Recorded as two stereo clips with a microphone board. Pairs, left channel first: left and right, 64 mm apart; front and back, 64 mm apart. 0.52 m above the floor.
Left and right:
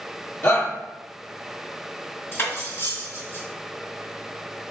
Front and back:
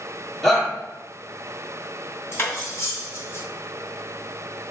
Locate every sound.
0.4 s a shout: 75° left, 1.4 m
2.3 s cutlery clinking: 35° left, 2.0 m